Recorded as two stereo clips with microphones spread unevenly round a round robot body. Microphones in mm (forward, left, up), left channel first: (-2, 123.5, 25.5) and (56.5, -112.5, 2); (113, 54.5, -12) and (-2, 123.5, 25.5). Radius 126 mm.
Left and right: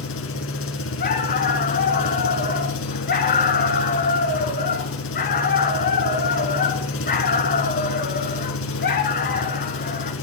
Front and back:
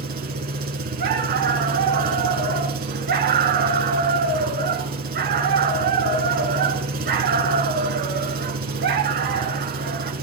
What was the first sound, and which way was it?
An engine running, 145° left.